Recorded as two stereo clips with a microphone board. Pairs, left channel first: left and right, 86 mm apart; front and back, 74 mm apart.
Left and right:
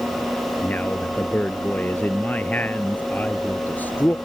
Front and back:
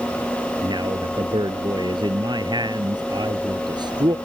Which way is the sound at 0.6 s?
160° left.